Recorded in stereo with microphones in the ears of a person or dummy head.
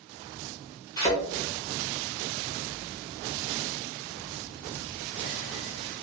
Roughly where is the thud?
Left.